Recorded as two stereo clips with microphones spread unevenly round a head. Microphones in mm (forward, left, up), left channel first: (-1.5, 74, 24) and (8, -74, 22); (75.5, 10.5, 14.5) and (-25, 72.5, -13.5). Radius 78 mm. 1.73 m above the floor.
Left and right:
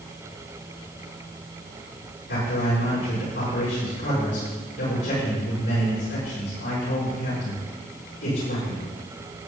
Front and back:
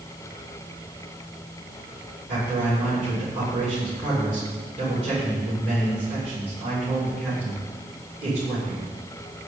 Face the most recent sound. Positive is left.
turn(degrees=110)